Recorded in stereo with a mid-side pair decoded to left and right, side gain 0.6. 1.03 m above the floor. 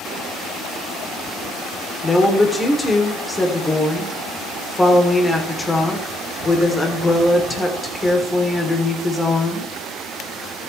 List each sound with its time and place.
2.0 s a woman speaking: 15° left, 3.5 m